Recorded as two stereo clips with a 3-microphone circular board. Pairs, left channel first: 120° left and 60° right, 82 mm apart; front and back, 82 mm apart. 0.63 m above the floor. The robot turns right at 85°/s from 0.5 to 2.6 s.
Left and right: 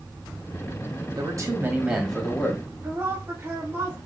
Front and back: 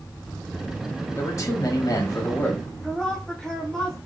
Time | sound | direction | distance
1.2 | a man speaking | 50° right | 1.0 m
2.8 | a woman speaking | 75° right | 0.9 m